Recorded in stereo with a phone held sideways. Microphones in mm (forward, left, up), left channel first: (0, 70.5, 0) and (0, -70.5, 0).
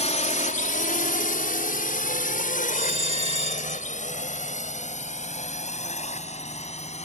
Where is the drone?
55° left (ahead or behind); by 7.1 s 50° left (ahead or behind).